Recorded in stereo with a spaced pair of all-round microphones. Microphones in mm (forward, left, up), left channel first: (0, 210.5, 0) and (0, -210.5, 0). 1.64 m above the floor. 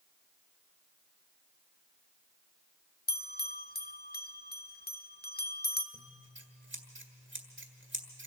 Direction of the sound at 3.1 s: 25° left (ahead or behind).